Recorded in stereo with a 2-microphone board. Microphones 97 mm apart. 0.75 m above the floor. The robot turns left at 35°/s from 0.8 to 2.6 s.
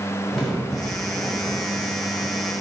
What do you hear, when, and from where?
0.3 s a crack: straight ahead, 2 m; by 2.5 s 60° right, 2 m